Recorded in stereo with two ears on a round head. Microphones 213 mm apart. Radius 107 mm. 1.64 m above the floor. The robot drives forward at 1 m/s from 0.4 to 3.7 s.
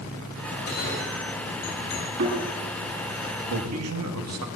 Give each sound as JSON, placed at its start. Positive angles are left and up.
{"t": 0.6, "sound": "a bell", "side_deg": 50, "distance_m": 7.0}
{"t": 2.2, "sound": "a thud", "side_deg": -85, "distance_m": 9.0}
{"t": 3.5, "sound": "a man speaking", "side_deg": -70, "distance_m": 2.5}